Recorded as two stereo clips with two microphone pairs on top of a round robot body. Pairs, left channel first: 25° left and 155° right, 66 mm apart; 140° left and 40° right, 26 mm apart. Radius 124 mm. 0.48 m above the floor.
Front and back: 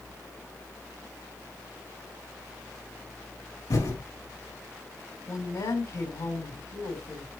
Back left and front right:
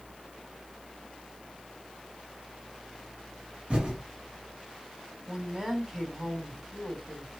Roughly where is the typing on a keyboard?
Ahead.